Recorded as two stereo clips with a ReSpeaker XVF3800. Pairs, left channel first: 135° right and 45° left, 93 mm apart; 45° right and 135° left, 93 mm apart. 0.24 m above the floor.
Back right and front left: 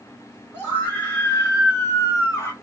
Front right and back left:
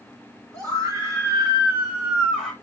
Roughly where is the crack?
I don't hear a crack.